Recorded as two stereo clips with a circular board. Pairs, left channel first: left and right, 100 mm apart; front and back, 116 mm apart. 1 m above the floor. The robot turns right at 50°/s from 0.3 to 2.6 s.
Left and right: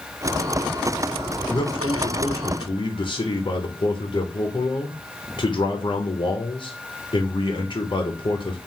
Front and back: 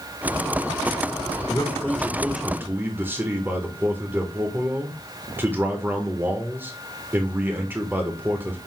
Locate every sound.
1.5 s a man speaking: 55° left, 0.7 m; by 8.6 s 110° left, 0.7 m